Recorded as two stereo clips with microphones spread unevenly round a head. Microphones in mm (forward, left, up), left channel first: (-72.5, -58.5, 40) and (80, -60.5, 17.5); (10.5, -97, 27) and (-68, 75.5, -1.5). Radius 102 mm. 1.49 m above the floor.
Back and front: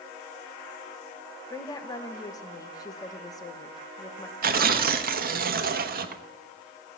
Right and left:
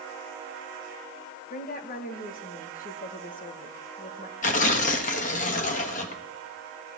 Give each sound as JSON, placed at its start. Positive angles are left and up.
{"t": 1.5, "sound": "a woman speaking", "azimuth_deg": -115, "distance_m": 2.0}
{"t": 4.4, "sound": "tearing paper", "azimuth_deg": -20, "distance_m": 1.2}